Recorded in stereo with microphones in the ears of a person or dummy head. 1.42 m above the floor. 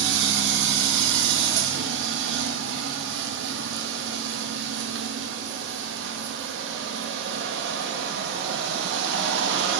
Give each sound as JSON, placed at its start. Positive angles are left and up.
{"t": 0.0, "sound": "a machine running", "side_deg": -65, "distance_m": 1.4}